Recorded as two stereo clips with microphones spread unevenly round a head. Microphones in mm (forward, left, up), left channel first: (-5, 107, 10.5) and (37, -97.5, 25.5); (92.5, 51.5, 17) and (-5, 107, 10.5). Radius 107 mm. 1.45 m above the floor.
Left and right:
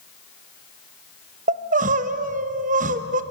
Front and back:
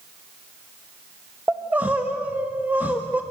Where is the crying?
125° right, 1.1 m.